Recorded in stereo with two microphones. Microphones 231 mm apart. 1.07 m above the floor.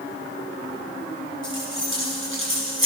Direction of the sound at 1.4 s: 60° right (ahead or behind).